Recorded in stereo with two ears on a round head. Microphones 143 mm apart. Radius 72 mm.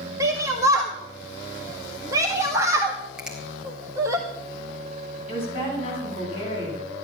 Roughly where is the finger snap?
Centre.